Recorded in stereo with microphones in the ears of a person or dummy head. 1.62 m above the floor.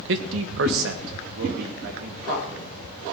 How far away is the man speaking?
About 1.2 m.